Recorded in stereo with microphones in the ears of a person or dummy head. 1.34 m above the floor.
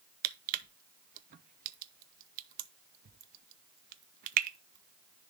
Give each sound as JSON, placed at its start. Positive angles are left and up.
{"t": 0.2, "sound": "crushing", "side_deg": -45, "distance_m": 0.5}